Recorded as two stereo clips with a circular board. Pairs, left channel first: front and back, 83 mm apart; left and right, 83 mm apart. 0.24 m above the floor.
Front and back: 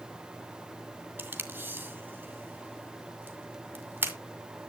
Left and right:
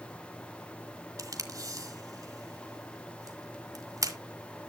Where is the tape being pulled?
120° right, 1.9 m.